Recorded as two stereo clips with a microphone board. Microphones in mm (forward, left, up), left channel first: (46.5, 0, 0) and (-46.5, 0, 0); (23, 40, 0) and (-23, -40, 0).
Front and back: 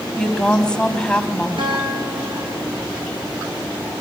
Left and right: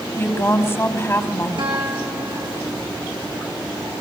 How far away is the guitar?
About 5 m.